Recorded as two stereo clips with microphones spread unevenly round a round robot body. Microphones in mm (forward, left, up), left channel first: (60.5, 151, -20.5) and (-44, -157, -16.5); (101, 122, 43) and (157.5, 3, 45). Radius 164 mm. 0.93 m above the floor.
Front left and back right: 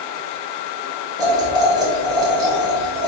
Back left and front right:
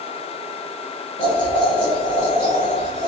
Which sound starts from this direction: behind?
Boiling, at 1.2 s.